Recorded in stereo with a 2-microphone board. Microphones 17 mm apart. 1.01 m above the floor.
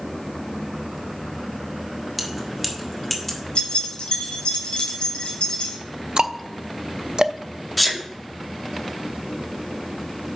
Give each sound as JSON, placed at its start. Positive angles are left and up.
{"t": 2.2, "sound": "keys jangling", "side_deg": -15, "distance_m": 1.6}
{"t": 3.5, "sound": "keys jangling", "side_deg": 85, "distance_m": 3.5}
{"t": 6.2, "sound": "ticking", "side_deg": -50, "distance_m": 0.5}
{"t": 7.8, "sound": "a sneeze", "side_deg": 0, "distance_m": 1.9}